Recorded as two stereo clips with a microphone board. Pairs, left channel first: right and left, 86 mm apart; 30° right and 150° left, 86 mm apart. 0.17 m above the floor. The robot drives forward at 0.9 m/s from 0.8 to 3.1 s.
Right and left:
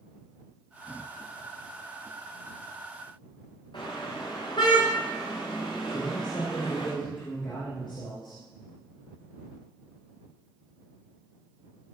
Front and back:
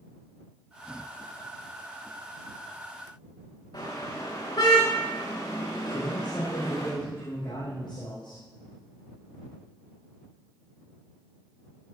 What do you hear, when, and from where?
3.7 s a car horn: 60° right, 10 m
5.9 s a man speaking: 60° right, 8.5 m